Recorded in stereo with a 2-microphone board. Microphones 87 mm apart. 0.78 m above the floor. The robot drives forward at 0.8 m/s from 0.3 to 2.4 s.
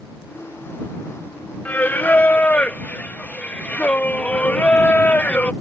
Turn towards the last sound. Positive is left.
turn(degrees=15)  # may be behind; listen again after turning